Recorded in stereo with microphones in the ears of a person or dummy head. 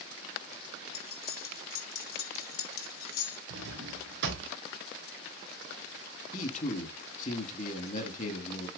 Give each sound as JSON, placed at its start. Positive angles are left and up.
{"t": 0.9, "sound": "cutlery clinking", "side_deg": 55, "distance_m": 2.0}
{"t": 3.5, "sound": "a drawer", "side_deg": -70, "distance_m": 1.8}
{"t": 6.3, "sound": "a man speaking", "side_deg": 45, "distance_m": 1.9}